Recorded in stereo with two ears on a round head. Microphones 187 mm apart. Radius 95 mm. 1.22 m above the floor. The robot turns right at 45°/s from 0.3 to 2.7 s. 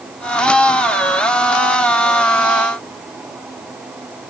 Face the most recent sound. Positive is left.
No sound to turn to.